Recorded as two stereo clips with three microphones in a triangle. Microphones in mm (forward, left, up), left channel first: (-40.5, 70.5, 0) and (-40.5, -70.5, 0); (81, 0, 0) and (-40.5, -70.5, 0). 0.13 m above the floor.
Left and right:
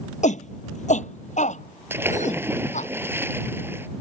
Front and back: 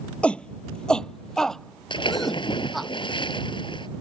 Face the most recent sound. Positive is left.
turn(degrees=-20)